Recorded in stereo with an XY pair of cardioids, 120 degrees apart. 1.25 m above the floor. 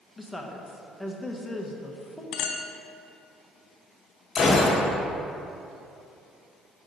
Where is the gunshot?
40° left, 1.2 m.